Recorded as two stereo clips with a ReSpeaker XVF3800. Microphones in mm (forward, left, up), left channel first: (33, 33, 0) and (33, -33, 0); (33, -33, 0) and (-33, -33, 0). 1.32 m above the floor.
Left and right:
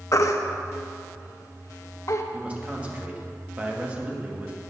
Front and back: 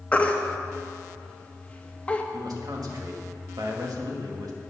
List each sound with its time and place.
0.1 s a baby crying: 65° left, 0.9 m
2.3 s a man speaking: 160° right, 1.9 m